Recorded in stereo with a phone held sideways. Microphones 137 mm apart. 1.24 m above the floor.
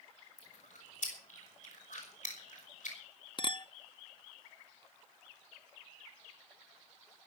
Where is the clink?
40° left (ahead or behind), 0.7 m.